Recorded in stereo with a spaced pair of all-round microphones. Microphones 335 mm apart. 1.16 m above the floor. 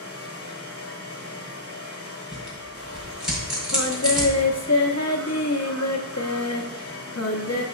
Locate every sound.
0.0 s a fan: 45° left (ahead or behind), 0.8 m
2.3 s tearing paper: centre (ahead or behind), 2 m
3.7 s singing: 55° left (ahead or behind), 0.8 m